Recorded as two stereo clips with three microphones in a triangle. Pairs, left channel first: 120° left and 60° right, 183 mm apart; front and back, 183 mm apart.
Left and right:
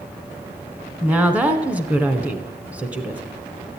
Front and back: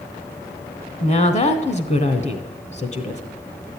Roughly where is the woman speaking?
Ahead.